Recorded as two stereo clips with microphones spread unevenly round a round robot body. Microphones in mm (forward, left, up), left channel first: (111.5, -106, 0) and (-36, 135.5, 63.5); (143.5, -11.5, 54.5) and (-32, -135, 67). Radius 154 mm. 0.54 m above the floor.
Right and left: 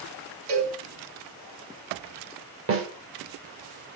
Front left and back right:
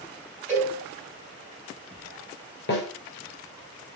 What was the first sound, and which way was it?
A cowbell, 115° left.